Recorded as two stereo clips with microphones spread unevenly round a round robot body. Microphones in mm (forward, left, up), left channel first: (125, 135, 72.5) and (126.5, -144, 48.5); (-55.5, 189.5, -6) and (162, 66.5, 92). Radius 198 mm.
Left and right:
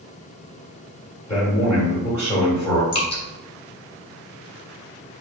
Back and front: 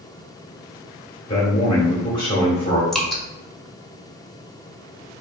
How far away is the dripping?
About 1.3 m.